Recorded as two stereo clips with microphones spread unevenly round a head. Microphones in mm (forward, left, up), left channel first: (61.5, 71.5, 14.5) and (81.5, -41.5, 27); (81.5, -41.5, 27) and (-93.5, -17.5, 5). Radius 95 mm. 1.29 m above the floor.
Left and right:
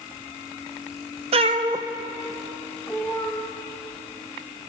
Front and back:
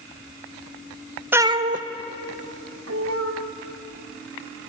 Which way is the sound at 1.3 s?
105° right.